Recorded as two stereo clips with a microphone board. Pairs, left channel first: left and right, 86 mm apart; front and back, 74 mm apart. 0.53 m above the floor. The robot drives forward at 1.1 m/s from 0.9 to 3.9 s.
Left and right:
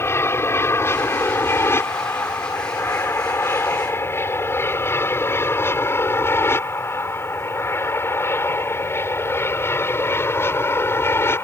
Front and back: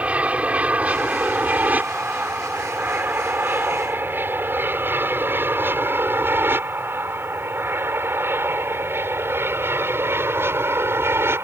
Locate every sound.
0.0 s an aircraft: 125° left; by 11.4 s 140° left